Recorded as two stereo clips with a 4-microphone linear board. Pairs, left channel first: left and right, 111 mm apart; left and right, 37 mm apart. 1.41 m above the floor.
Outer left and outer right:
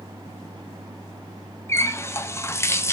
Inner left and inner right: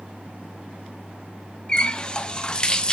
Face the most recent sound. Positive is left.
turn(degrees=25)  # may be behind; listen again after turning